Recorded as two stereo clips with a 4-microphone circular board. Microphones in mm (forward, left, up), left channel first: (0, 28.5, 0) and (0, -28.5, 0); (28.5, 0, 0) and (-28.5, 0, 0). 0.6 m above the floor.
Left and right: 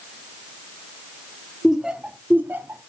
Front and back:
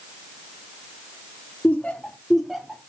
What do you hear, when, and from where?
1.6 s laughter: 5° right, 0.7 m; by 2.9 s 105° right, 0.9 m